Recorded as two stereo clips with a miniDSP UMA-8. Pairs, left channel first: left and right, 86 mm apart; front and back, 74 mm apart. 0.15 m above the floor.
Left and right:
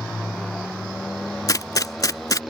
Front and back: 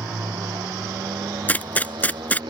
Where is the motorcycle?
175° left.